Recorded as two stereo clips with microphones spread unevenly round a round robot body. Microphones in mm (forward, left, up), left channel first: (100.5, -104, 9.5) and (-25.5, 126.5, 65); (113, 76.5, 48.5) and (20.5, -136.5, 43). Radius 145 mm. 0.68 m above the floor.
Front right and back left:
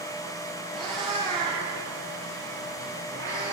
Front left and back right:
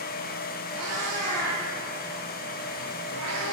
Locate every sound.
0.7 s a cat meowing: 155° right, 7 m; by 3.5 s 140° right, 8 m